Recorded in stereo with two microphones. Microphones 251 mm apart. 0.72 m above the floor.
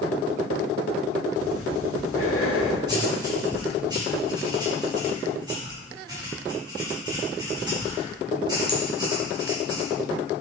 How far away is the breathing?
About 1.1 m.